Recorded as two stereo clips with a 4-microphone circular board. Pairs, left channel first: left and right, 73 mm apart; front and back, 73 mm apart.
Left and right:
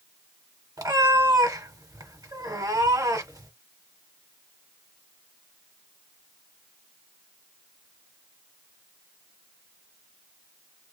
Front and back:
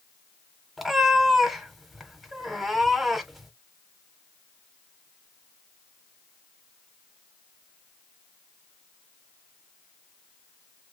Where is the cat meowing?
90° right, 0.9 m.